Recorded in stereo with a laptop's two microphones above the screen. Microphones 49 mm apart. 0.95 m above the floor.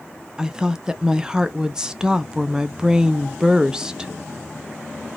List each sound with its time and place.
0.4 s a woman speaking: 15° right (ahead or behind), 0.6 m